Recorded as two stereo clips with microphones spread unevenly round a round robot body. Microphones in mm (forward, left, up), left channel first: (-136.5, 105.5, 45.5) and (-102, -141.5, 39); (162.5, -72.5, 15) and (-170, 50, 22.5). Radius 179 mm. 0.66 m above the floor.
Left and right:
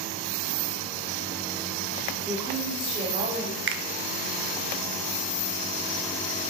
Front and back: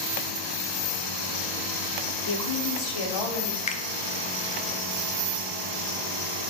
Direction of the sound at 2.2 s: 5° left.